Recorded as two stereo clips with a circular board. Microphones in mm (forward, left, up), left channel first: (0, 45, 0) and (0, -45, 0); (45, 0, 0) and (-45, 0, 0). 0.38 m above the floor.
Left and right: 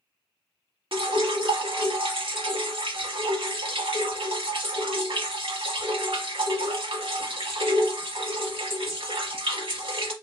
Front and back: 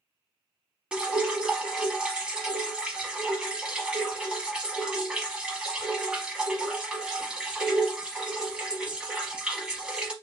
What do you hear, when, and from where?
0.9 s dripping: 100° right, 0.8 m